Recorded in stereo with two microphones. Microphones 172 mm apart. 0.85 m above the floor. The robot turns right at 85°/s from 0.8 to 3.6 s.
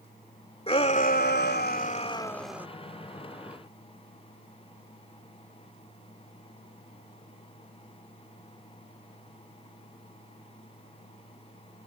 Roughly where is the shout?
Ahead left.